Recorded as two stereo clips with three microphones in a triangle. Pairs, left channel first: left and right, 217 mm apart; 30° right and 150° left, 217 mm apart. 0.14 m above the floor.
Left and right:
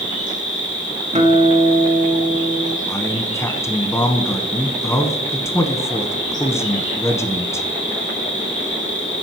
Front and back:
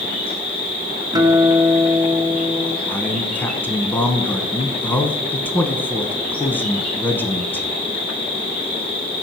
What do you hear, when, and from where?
0.0 s an insect: 35° left, 3.5 m
1.1 s a guitar: 140° right, 1.1 m
2.9 s a man speaking: 35° left, 1.1 m